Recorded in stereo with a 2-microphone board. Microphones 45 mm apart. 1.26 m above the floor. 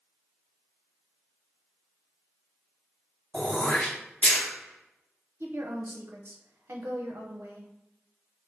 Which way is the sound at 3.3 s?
35° left (ahead or behind).